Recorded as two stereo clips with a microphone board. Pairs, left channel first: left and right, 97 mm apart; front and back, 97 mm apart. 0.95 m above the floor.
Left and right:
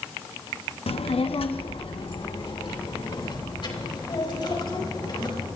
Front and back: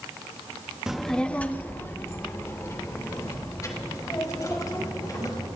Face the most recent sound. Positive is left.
turn(degrees=50)